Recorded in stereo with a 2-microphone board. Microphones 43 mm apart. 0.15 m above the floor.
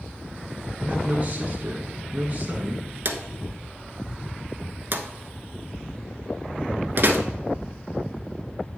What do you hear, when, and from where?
0.8 s a man speaking: 30° right (ahead or behind), 1.2 m
3.0 s a drawer: 55° right (ahead or behind), 0.9 m